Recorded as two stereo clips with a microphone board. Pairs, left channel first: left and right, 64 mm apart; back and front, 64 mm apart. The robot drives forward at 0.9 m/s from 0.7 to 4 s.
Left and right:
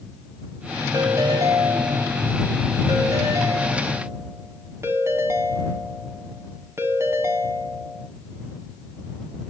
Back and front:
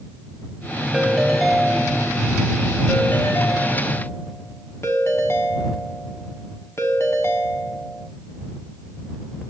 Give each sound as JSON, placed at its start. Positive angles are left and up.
{"t": 0.9, "sound": "a ringtone", "azimuth_deg": -75, "distance_m": 2.5}